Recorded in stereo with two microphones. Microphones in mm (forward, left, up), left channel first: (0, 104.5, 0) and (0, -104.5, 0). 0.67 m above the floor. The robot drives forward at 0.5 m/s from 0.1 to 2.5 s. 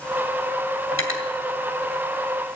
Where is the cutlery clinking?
75° left (ahead or behind), 2.5 m; by 1.3 s 80° left, 2.5 m.